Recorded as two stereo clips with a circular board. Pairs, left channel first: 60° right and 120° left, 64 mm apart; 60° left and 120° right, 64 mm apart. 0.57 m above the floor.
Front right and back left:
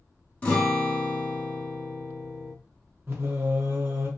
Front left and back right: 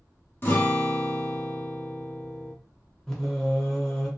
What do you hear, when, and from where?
0.4 s a guitar: 10° left, 0.9 m
3.1 s singing: 130° left, 0.9 m